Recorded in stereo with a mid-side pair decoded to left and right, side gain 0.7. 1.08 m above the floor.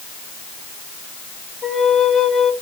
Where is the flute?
15° left, 1.6 m.